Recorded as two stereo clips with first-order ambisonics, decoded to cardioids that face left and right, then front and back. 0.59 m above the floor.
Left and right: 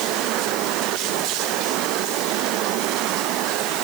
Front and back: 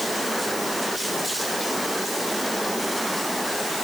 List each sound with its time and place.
Only background noise.